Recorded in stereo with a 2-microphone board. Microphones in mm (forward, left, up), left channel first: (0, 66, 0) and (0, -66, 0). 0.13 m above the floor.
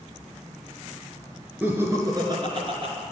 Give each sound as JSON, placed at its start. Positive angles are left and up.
{"t": 1.6, "sound": "laughter", "side_deg": -15, "distance_m": 1.6}